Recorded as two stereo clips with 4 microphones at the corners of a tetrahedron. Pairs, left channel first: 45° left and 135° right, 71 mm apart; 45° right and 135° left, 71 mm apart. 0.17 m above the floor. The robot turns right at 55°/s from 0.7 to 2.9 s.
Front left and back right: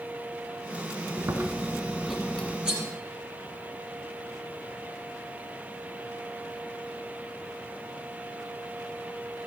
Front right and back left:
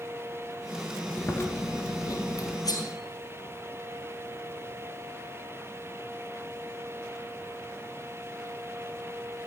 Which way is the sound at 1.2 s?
100° right.